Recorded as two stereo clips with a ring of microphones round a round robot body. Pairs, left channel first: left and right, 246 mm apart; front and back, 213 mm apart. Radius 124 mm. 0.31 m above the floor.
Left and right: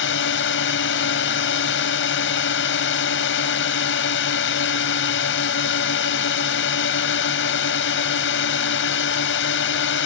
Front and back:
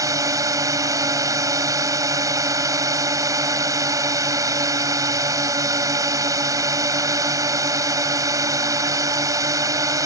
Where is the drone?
110° left.